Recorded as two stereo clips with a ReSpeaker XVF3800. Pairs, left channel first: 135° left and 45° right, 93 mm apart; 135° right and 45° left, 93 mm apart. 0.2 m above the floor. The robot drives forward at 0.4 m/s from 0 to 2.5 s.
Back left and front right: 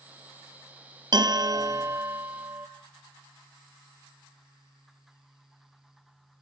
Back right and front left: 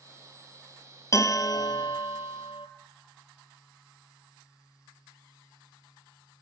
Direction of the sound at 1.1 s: 80° right.